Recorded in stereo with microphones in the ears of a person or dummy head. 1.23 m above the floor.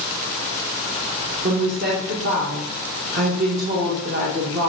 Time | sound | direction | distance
1.4 | a woman speaking | 40° right (ahead or behind) | 0.6 m